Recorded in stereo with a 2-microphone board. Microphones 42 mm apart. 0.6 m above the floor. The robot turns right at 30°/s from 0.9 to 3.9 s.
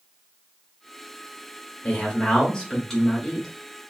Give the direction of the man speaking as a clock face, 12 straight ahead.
8 o'clock.